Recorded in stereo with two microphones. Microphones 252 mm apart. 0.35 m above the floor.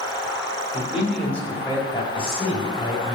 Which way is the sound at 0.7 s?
10° right (ahead or behind).